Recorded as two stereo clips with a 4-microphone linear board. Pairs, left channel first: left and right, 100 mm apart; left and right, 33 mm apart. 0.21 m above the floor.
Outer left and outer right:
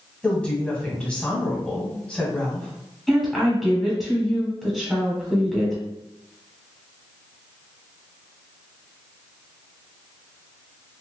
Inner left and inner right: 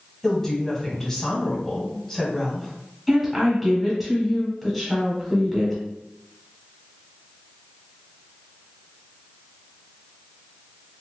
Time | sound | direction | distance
0.2 | a woman speaking | 10° left (ahead or behind) | 1.3 m
3.1 | a woman speaking | 5° right (ahead or behind) | 1.1 m